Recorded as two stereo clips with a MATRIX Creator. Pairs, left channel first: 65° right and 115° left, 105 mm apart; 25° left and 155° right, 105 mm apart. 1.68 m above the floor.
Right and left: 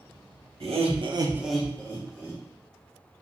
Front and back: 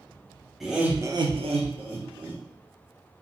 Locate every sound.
0.6 s laughter: 115° left, 0.9 m; by 2.4 s 120° right, 1.3 m